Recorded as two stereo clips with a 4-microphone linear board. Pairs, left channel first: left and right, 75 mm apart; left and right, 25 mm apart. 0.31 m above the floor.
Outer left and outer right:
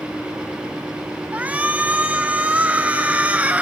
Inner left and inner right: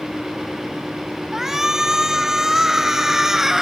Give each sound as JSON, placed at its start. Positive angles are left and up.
{"t": 1.3, "sound": "a shout", "side_deg": -20, "distance_m": 2.0}